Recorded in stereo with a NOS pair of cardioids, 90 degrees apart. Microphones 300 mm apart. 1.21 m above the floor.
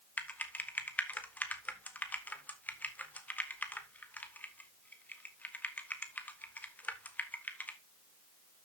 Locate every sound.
0.2 s typing on a keyboard: 5° left, 1.7 m